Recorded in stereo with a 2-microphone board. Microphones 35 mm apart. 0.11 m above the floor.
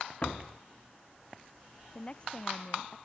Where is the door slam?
35° left (ahead or behind).